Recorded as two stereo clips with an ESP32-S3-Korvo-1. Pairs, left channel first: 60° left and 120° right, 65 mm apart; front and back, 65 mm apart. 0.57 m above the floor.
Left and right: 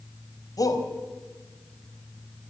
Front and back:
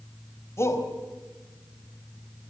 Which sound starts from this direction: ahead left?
A shout, at 0.6 s.